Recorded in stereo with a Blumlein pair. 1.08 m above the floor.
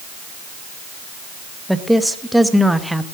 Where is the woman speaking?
Straight ahead, 0.9 m.